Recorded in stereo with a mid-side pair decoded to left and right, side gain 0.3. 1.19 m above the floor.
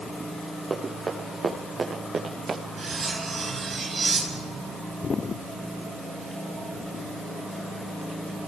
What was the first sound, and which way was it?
Running footsteps, 55° right.